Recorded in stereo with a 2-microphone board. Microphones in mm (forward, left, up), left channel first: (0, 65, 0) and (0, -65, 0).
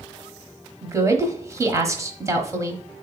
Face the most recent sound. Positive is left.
turn(degrees=-25)  # may be behind; listen again after turning